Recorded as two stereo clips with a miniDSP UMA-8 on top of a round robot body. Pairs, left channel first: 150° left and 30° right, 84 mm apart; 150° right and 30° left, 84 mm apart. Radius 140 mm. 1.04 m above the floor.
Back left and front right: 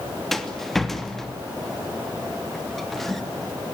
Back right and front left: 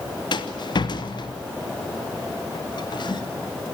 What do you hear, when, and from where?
0.3 s a rattle: 125° right, 2.5 m